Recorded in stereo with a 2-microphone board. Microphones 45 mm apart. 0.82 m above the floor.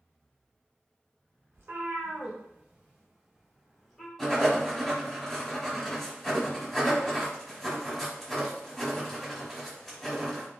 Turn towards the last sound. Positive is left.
turn(degrees=0)  # may be behind; listen again after turning